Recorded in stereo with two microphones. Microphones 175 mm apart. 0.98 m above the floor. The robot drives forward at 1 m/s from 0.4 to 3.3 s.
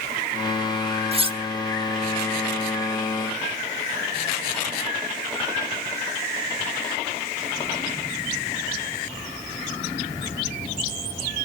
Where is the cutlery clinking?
35° right (ahead or behind), 1.1 m; by 1.4 s 30° right (ahead or behind), 1.3 m.